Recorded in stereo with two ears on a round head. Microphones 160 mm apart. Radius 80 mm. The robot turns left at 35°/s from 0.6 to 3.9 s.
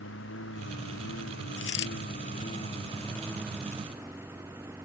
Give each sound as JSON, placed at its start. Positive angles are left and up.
{"t": 0.0, "sound": "a lawn mower", "azimuth_deg": 100}
{"t": 1.6, "sound": "a dropped coin", "side_deg": 75}